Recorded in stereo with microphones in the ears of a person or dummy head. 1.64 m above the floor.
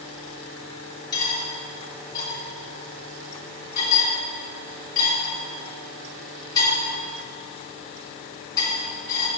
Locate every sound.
1.1 s cutlery clinking: 20° left (ahead or behind), 2.5 m